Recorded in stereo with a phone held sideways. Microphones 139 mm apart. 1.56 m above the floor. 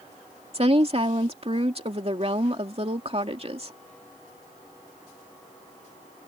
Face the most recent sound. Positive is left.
turn(degrees=-45)  # may be behind; listen again after turning